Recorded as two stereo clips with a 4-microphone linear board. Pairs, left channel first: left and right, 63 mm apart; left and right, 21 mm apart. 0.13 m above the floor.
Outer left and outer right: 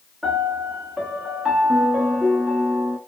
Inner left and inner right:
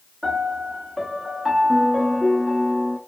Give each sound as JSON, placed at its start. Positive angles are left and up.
{"t": 0.2, "sound": "a piano", "side_deg": -5, "distance_m": 0.9}